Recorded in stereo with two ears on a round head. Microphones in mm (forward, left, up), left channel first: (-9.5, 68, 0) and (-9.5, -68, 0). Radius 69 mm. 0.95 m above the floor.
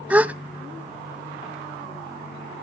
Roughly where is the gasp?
Centre.